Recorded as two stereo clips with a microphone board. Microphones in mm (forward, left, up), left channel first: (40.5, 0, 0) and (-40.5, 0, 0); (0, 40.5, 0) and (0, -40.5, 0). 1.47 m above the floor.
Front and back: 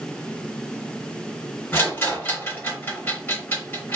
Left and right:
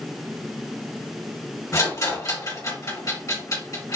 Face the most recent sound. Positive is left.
turn(degrees=60)